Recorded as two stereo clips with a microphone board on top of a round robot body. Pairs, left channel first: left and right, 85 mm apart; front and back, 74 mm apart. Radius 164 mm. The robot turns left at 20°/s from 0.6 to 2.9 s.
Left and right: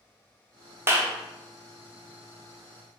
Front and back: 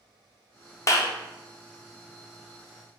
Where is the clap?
35° right, 0.8 m; by 1.1 s 40° right, 0.8 m.